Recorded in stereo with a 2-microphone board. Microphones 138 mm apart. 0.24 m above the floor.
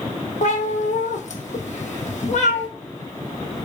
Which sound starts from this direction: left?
A cat meowing, at 0.4 s.